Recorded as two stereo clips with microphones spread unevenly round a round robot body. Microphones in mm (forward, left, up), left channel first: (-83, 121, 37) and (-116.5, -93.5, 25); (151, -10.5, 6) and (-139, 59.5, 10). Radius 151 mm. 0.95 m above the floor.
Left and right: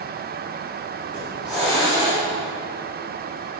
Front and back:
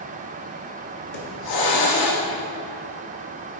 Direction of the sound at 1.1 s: 10° right.